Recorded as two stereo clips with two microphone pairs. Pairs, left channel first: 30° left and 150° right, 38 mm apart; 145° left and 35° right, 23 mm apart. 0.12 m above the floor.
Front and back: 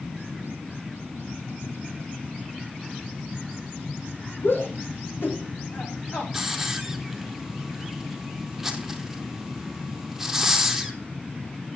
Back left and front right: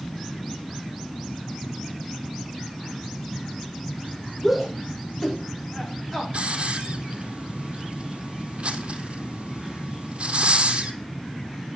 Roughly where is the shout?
Ahead left.